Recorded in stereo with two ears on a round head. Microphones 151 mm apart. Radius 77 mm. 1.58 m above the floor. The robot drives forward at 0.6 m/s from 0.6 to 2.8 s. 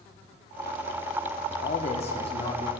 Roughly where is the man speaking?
Left.